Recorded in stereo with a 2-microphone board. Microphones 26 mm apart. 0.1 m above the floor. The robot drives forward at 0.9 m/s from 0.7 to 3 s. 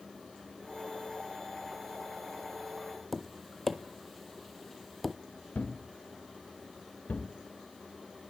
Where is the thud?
75° left (ahead or behind), 3 m.